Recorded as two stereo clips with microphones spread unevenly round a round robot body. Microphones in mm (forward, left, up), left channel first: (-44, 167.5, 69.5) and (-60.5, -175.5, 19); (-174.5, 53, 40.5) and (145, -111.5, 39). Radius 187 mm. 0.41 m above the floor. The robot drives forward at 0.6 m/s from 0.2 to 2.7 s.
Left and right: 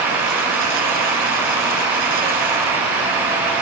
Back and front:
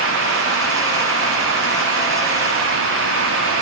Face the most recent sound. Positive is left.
No sound to turn to.